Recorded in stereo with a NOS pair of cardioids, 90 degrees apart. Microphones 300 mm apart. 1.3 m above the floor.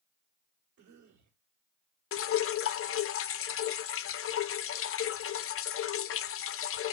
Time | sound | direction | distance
0.8 | a cough | 65° right | 2.5 m
2.1 | dripping | 50° left | 0.6 m